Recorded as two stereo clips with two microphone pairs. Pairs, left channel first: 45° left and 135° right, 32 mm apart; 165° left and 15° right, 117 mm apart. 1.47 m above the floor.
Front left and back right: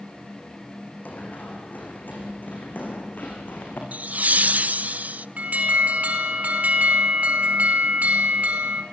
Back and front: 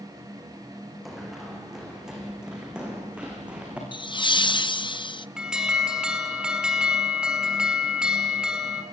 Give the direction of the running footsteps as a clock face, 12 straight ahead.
9 o'clock.